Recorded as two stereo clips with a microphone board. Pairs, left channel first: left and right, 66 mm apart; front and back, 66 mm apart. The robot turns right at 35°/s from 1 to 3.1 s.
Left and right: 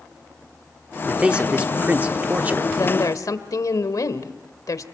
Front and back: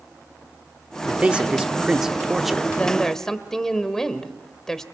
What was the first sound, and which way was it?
A man speaking, 145° right.